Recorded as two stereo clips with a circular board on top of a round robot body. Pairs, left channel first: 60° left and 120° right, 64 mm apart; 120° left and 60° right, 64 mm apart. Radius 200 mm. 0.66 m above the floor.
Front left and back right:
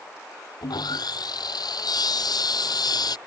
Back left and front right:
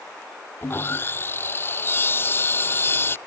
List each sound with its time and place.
0.6 s sawing: 65° left